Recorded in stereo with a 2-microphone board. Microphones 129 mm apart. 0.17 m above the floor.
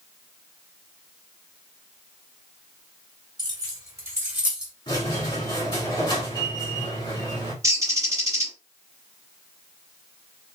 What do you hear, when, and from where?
3.4 s keys jangling: 35° right (ahead or behind), 1.4 m; by 4.7 s 5° right (ahead or behind), 1.3 m
4.9 s a squeak: 35° left (ahead or behind), 1.4 m
7.6 s a bird: 25° right (ahead or behind), 1.5 m